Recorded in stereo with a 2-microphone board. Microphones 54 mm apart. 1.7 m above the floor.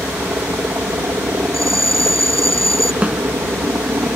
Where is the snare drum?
20° right (ahead or behind).